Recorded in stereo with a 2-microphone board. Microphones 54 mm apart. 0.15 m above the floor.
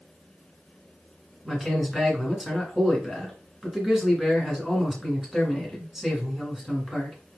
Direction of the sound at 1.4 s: 5° right (ahead or behind).